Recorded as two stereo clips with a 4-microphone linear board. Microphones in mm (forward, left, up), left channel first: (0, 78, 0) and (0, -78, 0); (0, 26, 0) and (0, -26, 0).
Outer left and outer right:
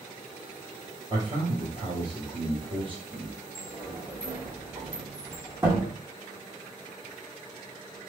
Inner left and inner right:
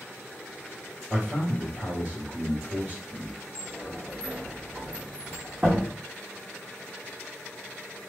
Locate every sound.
1.1 s a man speaking: 35° right (ahead or behind), 1.9 m
3.5 s a sliding door: 15° right (ahead or behind), 2.5 m